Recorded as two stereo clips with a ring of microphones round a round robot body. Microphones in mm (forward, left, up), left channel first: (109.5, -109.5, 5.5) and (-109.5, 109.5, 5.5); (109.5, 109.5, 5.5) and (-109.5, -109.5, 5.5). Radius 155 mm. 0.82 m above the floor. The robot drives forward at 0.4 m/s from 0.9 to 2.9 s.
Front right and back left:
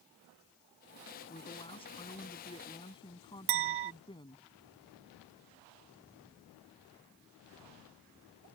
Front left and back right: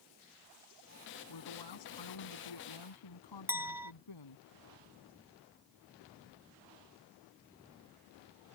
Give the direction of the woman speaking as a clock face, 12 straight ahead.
11 o'clock.